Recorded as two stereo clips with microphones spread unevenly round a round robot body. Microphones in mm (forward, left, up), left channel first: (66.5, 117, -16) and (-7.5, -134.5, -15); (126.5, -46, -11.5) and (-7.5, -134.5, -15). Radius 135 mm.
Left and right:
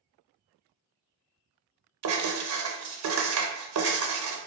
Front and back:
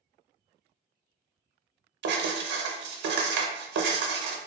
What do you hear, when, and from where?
2.0 s writing: 145° right, 0.6 m